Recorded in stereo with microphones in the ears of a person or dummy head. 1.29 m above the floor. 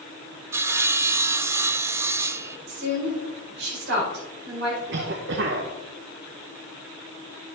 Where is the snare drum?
I don't hear a snare drum.